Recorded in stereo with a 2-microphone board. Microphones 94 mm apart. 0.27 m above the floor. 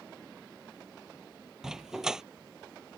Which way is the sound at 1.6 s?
5° right (ahead or behind).